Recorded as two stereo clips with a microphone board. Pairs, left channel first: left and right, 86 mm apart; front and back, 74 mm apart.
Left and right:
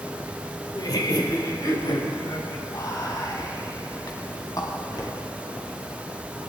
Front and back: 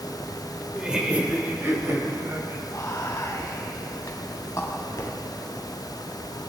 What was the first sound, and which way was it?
Laughter, 100° left.